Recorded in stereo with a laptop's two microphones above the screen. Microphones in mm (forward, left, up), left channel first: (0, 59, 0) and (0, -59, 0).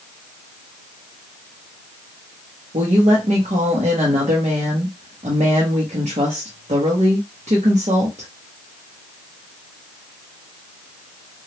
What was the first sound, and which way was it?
A woman speaking, 65° right (ahead or behind).